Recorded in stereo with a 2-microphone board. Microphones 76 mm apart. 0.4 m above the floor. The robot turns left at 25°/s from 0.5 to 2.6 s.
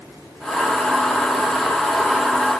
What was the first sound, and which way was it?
Only background noise.